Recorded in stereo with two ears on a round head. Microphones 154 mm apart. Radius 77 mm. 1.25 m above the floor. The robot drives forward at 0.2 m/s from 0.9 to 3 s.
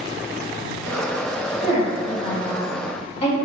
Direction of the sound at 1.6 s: 40° left (ahead or behind).